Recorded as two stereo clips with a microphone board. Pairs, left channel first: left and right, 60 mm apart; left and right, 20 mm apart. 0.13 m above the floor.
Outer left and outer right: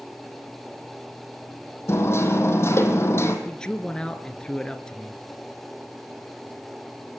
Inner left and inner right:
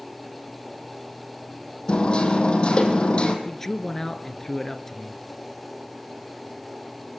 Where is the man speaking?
15° left (ahead or behind), 2.5 m.